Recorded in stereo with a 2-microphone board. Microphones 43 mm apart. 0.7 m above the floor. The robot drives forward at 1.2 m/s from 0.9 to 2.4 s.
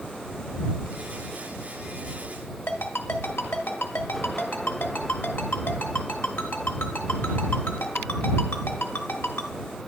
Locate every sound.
2.7 s a ringtone: 70° left (ahead or behind), 1.1 m